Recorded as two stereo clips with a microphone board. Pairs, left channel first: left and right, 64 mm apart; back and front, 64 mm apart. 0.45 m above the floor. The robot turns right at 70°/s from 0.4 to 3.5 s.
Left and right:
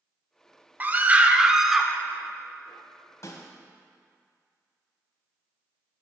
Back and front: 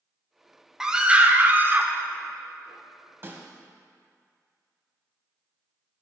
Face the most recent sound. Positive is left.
turn(degrees=70)